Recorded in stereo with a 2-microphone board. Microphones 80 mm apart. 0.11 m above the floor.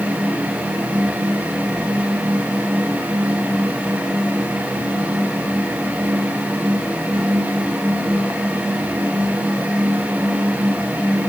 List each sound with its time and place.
Only background noise.